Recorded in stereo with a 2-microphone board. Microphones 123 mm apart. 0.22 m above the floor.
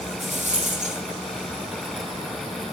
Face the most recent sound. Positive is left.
turn(degrees=-70)  # may be behind; listen again after turning